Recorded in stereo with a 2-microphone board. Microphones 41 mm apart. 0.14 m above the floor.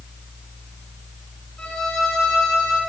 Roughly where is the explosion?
I don't hear an explosion.